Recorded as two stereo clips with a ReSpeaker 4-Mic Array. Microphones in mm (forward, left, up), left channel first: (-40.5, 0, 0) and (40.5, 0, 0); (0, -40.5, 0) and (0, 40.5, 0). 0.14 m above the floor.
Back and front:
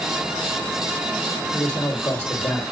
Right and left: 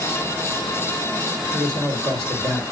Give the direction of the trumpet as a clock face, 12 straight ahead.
No trumpet in this recording.